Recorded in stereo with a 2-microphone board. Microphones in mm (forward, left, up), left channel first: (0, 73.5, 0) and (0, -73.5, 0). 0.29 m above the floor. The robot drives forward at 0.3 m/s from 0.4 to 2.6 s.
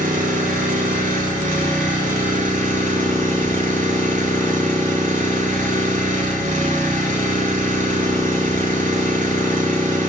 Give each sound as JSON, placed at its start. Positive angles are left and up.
{"t": 0.0, "sound": "an engine running", "side_deg": -75, "distance_m": 4.5}